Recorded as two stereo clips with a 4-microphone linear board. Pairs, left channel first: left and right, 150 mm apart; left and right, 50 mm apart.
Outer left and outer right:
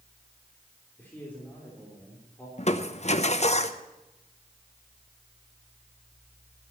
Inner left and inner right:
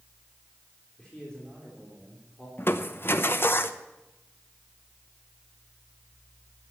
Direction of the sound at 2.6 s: 45° left (ahead or behind).